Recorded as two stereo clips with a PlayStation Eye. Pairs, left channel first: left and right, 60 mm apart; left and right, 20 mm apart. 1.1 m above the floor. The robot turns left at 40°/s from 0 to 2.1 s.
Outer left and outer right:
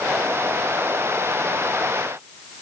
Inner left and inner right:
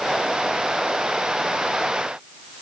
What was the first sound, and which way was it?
Only background noise.